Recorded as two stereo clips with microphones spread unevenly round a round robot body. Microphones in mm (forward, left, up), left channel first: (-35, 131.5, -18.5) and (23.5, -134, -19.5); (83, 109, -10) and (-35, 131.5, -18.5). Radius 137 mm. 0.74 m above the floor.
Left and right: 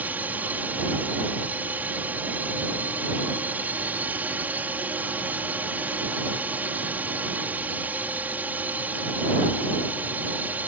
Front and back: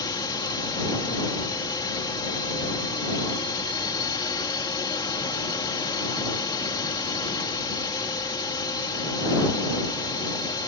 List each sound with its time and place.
0.0 s a drone: straight ahead